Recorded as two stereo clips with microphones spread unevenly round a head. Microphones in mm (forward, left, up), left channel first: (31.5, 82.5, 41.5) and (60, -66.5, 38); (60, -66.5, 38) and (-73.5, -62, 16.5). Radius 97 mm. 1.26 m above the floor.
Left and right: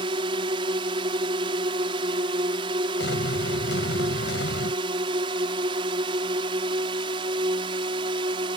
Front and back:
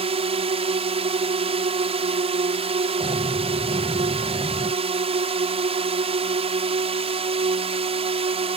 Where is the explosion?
110° left.